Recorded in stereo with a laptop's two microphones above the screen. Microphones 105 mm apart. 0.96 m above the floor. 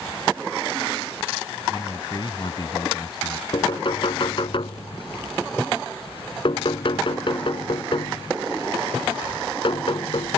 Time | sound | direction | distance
1.7 | a man speaking | 45° left (ahead or behind) | ?
3.5 | knocking | 55° left (ahead or behind) | ?